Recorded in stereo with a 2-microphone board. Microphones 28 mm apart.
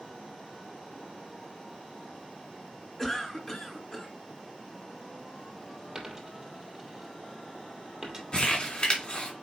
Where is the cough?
10° left (ahead or behind), 2.5 m.